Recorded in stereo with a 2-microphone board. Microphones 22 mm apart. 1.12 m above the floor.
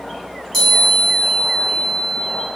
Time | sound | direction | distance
0.5 | a chime | 15° left (ahead or behind) | 1.3 m